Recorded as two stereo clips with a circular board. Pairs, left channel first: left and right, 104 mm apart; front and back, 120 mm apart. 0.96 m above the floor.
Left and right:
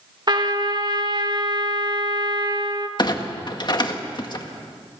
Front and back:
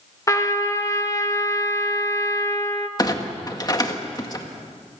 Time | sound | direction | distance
0.3 | a trumpet | 55° right | 1.4 m
3.0 | a clunk | 50° left | 1.7 m